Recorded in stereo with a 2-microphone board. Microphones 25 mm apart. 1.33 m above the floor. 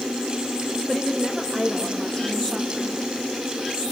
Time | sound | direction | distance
0.9 | a woman speaking | 15° left (ahead or behind) | 2.5 m